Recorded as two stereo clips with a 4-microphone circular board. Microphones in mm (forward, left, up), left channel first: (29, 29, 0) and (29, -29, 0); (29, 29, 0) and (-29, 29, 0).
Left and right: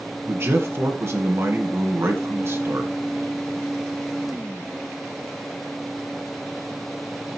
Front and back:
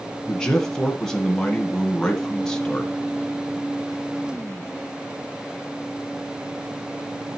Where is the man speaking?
75° right, 1.8 m.